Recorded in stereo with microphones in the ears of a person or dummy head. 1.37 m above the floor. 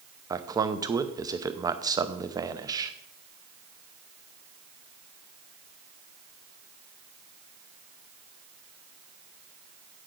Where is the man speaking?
20° right (ahead or behind), 0.6 m.